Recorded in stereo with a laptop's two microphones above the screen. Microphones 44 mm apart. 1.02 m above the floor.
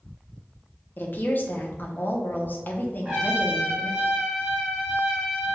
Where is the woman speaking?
45° left (ahead or behind), 0.7 m.